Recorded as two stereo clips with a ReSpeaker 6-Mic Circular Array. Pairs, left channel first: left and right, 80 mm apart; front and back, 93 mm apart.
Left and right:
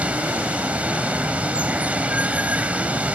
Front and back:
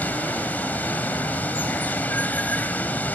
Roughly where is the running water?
Ahead right.